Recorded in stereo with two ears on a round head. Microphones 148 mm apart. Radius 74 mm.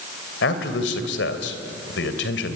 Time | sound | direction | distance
0.4 | a man speaking | 70° left (ahead or behind) | 3 m